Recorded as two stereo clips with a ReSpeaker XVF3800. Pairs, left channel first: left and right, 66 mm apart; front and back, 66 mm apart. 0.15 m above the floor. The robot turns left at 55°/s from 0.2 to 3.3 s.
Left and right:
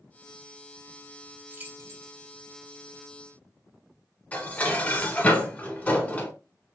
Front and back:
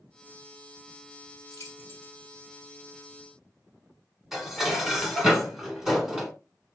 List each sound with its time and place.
1.5 s keys jangling: 25° right, 2 m; by 2.2 s 60° right, 2 m
4.3 s dishes clattering: 105° left, 1.0 m